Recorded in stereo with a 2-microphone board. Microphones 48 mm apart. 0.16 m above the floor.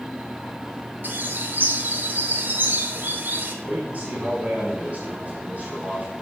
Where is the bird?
45° right (ahead or behind), 1.1 m.